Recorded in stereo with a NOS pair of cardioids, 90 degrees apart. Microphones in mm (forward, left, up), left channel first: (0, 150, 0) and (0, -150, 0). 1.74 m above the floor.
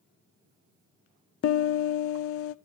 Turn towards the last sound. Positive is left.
turn(degrees=50)